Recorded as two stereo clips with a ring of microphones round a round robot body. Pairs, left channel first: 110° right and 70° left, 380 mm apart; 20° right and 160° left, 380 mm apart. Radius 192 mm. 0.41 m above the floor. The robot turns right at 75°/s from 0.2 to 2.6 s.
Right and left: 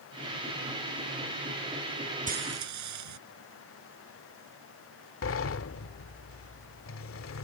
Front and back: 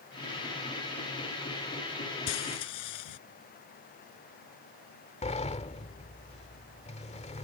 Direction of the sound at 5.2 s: 85° right.